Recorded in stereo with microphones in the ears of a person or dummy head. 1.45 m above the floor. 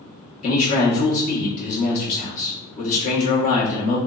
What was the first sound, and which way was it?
A man speaking, 45° left (ahead or behind).